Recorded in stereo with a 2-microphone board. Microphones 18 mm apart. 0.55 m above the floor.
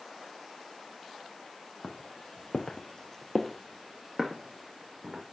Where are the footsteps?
55° left (ahead or behind), 1.2 m; by 5.2 s 30° right (ahead or behind), 2 m.